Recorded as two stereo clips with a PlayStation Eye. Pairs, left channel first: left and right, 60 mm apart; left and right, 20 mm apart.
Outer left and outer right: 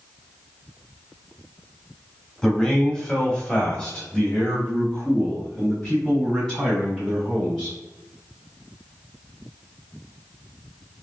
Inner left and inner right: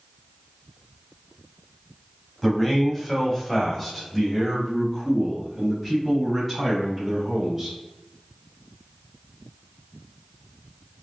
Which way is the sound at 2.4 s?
15° left (ahead or behind).